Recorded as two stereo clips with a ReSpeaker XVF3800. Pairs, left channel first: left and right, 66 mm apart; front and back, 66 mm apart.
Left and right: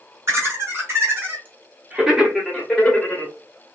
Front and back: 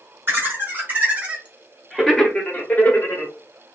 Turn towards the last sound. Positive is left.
turn(degrees=35)